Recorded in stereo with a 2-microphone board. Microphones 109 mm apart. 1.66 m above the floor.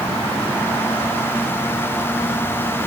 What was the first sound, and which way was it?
Only background noise.